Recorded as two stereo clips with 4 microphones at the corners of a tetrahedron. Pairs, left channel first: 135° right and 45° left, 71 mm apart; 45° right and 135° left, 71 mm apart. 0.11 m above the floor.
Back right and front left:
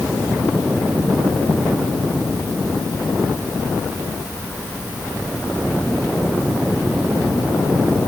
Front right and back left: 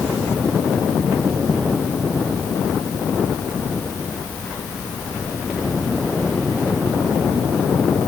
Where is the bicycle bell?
No bicycle bell in this recording.